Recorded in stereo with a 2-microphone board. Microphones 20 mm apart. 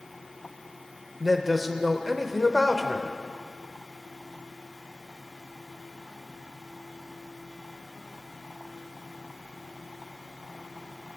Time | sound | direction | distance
1.2 | a man speaking | 5° right (ahead or behind) | 0.9 m